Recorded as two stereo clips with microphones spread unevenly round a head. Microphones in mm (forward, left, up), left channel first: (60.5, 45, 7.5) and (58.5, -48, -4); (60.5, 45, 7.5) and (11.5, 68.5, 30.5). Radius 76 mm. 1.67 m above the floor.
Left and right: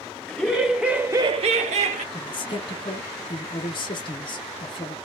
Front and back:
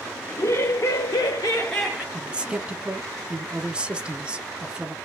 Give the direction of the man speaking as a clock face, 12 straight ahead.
8 o'clock.